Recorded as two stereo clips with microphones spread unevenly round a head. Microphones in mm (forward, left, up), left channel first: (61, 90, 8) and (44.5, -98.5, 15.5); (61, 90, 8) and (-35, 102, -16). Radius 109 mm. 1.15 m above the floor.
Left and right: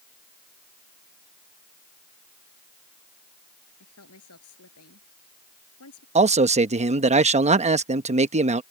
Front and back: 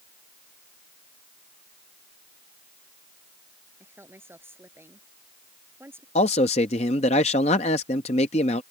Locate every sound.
3.8 s a woman speaking: 105° left
6.2 s a man speaking: 40° right